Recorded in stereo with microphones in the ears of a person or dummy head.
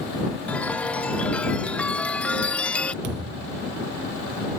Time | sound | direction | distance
0.5 | a chime | 5° left (ahead or behind) | ?
3.0 | a thud | 60° right (ahead or behind) | ?